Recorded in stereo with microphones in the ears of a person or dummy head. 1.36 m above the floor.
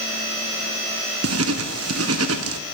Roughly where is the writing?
Right.